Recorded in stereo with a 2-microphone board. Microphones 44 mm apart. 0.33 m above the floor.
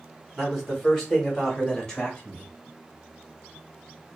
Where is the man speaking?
5° left (ahead or behind), 1.7 m; by 2.5 s 20° left (ahead or behind), 1.2 m.